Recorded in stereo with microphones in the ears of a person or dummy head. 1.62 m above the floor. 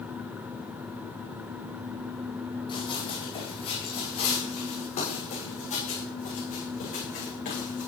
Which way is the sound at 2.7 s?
25° left (ahead or behind).